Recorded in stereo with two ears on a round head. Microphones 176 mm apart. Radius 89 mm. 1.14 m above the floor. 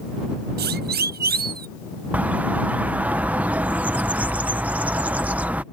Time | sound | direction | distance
0.6 | a siren | 55° right (ahead or behind) | ?
2.1 | a bird | 10° right (ahead or behind) | ?